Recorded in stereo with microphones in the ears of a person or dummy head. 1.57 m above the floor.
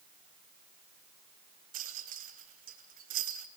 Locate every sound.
1.7 s a rattle: 40° right (ahead or behind), 0.9 m